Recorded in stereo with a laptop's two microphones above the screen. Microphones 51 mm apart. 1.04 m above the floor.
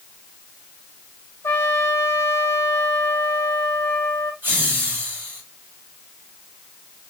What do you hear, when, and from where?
1.4 s a trumpet: 55° left (ahead or behind), 0.8 m
4.4 s laughter: 40° right (ahead or behind), 3 m